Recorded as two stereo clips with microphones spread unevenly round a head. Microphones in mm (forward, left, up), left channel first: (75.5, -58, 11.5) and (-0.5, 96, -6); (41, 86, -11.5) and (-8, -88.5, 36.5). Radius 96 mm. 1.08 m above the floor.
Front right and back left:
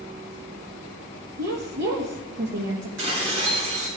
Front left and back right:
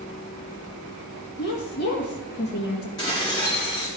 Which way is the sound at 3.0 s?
145° left.